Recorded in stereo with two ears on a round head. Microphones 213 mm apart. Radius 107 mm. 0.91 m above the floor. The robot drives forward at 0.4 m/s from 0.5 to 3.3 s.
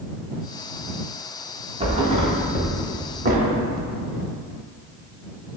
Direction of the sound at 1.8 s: 25° right (ahead or behind).